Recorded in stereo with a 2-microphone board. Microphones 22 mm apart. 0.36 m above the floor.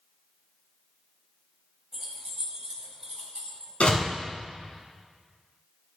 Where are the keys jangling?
20° right (ahead or behind), 1.4 m; by 3.7 s 35° right (ahead or behind), 2 m.